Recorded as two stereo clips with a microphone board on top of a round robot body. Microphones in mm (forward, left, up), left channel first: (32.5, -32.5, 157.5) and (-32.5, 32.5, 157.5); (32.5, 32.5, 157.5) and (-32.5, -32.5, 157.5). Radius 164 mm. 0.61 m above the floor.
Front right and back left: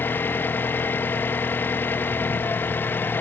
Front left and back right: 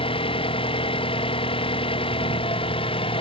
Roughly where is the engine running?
Ahead left.